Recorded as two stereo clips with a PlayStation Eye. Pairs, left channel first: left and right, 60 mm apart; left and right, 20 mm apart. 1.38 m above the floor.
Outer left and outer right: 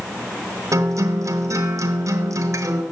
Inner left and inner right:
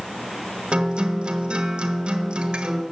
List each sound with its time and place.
0.7 s a guitar: 60° right (ahead or behind), 1.2 m